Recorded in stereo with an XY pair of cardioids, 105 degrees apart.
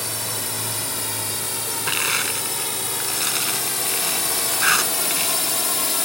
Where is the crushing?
5° right.